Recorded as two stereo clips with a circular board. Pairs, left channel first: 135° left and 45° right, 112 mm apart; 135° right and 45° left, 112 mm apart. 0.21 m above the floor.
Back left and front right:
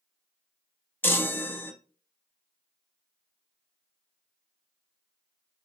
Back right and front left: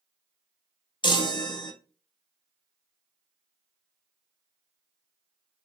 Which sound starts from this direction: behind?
A chime, at 1.0 s.